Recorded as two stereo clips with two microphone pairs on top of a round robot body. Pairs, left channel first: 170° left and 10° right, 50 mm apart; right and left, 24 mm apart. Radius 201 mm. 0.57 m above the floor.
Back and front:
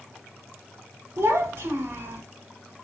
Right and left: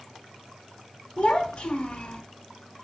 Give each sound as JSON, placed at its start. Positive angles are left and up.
{"t": 1.2, "sound": "a child speaking", "azimuth_deg": -40, "distance_m": 1.2}